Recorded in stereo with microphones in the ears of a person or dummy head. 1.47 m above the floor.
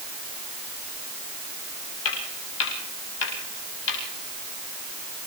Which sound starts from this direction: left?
Footsteps, at 2.0 s.